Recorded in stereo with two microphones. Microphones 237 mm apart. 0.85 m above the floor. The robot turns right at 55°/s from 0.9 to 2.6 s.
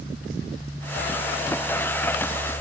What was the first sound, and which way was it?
Only background noise.